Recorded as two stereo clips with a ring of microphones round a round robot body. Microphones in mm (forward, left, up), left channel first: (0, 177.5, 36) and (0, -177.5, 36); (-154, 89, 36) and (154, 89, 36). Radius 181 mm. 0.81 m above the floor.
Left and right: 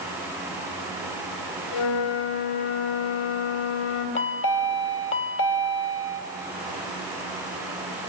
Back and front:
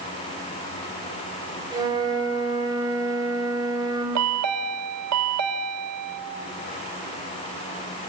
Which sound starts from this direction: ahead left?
A chime, at 4.2 s.